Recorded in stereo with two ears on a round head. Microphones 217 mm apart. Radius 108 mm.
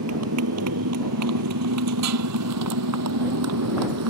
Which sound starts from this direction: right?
A motorcycle, at 0.0 s.